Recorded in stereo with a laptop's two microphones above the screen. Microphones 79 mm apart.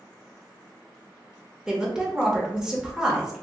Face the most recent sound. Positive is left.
turn(degrees=-5)  # may be behind; listen again after turning